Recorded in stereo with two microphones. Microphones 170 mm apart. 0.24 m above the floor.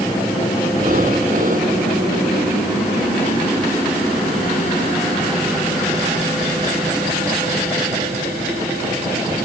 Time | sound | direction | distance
0.7 | breathing | 55° right (ahead or behind) | ?